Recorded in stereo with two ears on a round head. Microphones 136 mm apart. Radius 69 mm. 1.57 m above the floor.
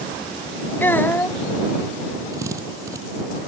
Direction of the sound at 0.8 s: 15° left (ahead or behind).